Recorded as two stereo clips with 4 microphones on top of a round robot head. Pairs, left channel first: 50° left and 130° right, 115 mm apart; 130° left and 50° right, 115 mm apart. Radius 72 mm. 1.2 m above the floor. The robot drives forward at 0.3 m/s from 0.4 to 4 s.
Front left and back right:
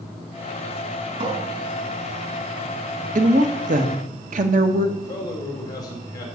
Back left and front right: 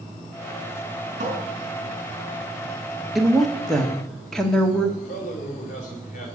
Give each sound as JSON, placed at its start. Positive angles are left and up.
{"t": 1.2, "sound": "a cupboard door", "azimuth_deg": -80, "distance_m": 4.0}
{"t": 3.1, "sound": "a woman speaking", "azimuth_deg": -135, "distance_m": 1.8}
{"t": 5.0, "sound": "a man speaking", "azimuth_deg": 110, "distance_m": 5.0}